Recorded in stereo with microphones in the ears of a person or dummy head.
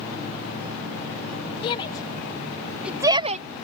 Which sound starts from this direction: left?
A shout, at 1.6 s.